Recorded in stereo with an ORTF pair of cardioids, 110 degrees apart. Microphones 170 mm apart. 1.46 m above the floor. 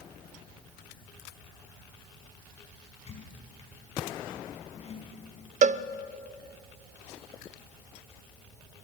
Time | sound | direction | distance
3.1 | a squeak | 40° left | 6.5 m
5.6 | a cowbell | 50° right | 0.6 m